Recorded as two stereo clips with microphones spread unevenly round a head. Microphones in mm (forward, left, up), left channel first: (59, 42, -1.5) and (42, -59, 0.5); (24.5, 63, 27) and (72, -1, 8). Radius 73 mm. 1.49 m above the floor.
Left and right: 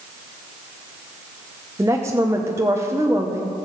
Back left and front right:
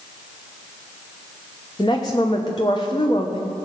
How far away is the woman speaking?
About 1.0 m.